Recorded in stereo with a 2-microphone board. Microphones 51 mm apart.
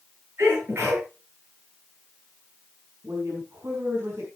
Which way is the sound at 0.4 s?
50° right (ahead or behind).